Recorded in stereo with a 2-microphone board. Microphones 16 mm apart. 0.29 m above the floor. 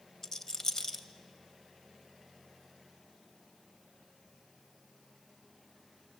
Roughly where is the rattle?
Left.